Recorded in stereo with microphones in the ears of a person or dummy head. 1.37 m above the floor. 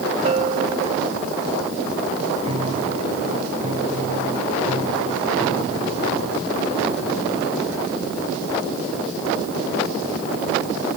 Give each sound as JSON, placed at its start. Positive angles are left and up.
{"t": 0.2, "sound": "a bell", "side_deg": -35}
{"t": 2.4, "sound": "a piano", "side_deg": -35}